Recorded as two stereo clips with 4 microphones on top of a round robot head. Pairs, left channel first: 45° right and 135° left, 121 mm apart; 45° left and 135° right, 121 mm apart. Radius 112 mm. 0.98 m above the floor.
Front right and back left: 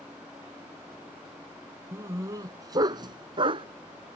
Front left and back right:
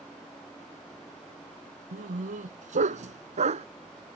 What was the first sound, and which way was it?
A dog barking, 155° right.